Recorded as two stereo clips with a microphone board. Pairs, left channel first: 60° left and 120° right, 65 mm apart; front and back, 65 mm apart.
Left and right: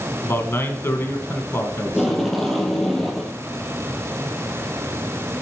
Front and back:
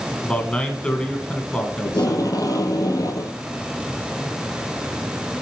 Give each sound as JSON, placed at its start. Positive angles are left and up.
{"t": 0.2, "sound": "a man speaking", "azimuth_deg": 65, "distance_m": 1.5}
{"t": 1.9, "sound": "tape being pulled", "azimuth_deg": -25, "distance_m": 1.8}